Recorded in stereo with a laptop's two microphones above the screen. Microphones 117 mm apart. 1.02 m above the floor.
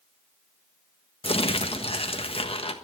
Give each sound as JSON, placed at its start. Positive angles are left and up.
{"t": 1.2, "sound": "crumpling", "side_deg": 55, "distance_m": 1.3}